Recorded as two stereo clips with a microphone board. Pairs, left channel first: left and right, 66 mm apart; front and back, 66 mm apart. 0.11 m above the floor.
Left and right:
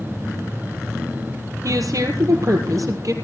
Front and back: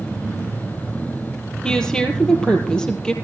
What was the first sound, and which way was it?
A woman speaking, 75° right.